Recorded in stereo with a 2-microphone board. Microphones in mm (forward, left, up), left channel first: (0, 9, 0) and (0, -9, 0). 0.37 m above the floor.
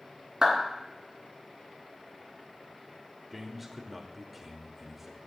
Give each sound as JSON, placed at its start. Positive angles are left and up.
{"t": 0.4, "sound": "a clap", "side_deg": -35, "distance_m": 3.0}
{"t": 3.3, "sound": "a man speaking", "side_deg": -5, "distance_m": 0.8}